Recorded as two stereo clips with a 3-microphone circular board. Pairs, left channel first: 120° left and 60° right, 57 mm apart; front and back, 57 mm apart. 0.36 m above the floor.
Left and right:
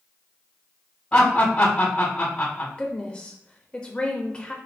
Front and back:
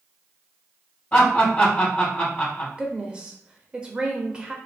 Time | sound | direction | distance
1.1 | laughter | 65° left | 1.9 m
2.8 | a woman speaking | 145° left | 1.0 m